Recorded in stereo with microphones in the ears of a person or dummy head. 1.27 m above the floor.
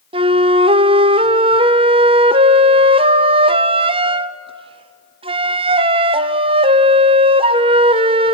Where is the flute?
20° right (ahead or behind), 0.5 m.